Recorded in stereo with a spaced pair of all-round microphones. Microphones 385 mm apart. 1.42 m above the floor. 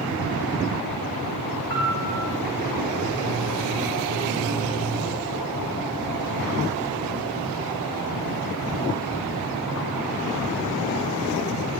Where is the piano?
30° right (ahead or behind), 3.5 m.